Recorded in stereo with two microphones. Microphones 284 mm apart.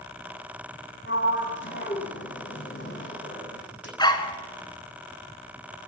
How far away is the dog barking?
About 1.9 m.